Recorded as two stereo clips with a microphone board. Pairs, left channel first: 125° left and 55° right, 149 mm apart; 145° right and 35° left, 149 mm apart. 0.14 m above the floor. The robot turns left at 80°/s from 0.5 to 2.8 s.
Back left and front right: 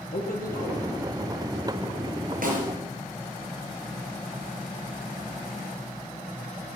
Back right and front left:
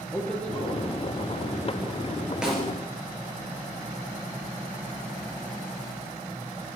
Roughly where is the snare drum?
Ahead right.